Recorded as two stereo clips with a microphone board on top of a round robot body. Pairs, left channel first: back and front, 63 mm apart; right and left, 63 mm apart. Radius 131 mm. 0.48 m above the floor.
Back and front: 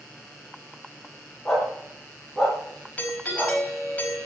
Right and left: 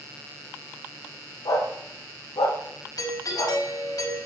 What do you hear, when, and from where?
1.4 s a dog barking: 95° right, 5.5 m; by 3.6 s 80° right, 6 m
3.0 s a doorbell: 110° right, 5 m